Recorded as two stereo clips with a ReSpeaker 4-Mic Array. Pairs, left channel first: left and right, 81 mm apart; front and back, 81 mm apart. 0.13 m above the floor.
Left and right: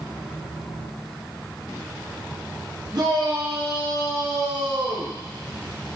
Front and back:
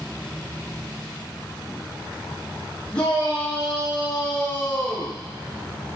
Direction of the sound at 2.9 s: 75° right.